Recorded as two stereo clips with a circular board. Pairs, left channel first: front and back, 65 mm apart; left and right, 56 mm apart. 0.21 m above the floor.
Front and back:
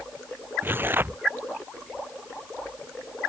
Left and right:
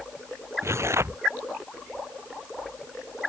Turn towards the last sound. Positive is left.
turn(degrees=-125)